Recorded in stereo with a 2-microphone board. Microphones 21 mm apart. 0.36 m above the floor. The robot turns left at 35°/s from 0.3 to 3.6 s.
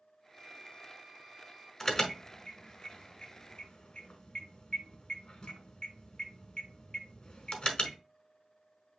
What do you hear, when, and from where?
0.3 s a violin: 110° right, 3 m; by 1.7 s 160° right, 3 m
1.8 s an alarm: 10° left (ahead or behind), 1.3 m; by 8.0 s 45° left (ahead or behind), 1.3 m